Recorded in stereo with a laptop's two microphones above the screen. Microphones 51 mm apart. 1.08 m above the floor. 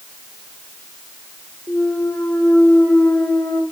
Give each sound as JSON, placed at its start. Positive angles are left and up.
{"t": 1.7, "sound": "a clunk", "side_deg": 65, "distance_m": 2.5}